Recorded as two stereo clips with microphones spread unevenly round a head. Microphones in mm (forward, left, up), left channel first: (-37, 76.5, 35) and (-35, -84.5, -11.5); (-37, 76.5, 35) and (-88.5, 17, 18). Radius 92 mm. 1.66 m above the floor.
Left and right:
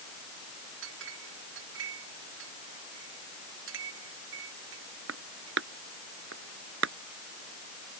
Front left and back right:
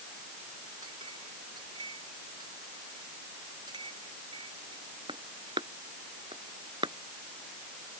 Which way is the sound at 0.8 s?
70° right.